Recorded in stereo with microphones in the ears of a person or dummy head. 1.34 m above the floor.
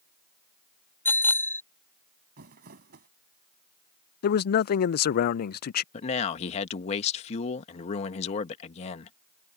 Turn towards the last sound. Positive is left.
turn(degrees=40)  # may be behind; listen again after turning